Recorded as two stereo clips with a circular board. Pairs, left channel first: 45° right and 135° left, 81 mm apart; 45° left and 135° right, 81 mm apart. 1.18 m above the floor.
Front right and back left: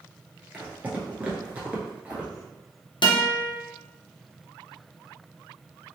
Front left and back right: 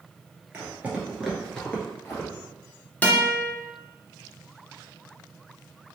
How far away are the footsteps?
About 1.3 m.